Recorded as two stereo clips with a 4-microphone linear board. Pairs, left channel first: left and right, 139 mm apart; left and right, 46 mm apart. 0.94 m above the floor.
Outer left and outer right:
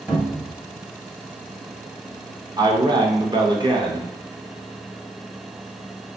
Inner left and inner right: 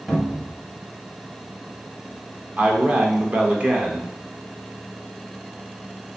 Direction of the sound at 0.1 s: 5° right (ahead or behind).